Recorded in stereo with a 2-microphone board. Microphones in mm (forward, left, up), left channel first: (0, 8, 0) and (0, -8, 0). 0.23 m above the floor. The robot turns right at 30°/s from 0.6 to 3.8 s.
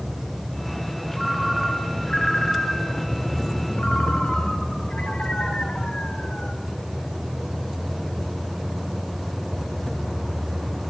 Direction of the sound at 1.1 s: 5° left.